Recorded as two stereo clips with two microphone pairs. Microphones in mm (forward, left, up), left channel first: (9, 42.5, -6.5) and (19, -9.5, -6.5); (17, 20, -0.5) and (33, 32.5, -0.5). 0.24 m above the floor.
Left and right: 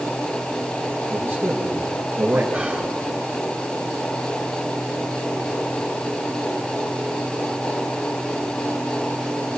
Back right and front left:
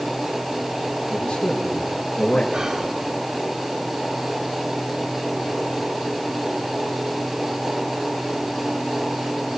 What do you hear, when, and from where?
1.1 s a man speaking: 140° right, 4.5 m
2.5 s whispering: straight ahead, 3 m